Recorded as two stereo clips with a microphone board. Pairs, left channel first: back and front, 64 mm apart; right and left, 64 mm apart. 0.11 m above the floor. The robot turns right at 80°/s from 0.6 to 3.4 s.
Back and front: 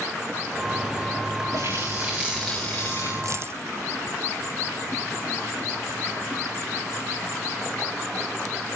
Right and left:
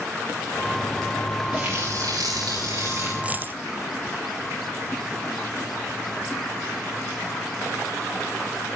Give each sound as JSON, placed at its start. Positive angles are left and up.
{"t": 1.5, "sound": "a running tap", "azimuth_deg": 15, "distance_m": 8.0}
{"t": 3.2, "sound": "a dropped coin", "azimuth_deg": 20, "distance_m": 0.7}